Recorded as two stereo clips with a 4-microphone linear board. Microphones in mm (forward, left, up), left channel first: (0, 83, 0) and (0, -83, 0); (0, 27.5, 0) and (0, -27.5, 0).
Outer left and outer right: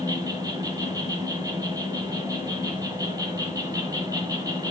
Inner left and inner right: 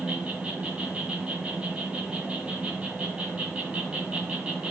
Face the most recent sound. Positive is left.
turn(degrees=-20)  # may be behind; listen again after turning